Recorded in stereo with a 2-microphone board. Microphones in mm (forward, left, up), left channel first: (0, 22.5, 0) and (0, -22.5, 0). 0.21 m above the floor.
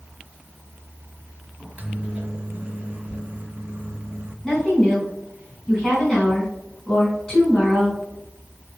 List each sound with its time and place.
1.6 s a microwave: 30° right (ahead or behind), 1.3 m
4.4 s a woman speaking: 15° left (ahead or behind), 2.5 m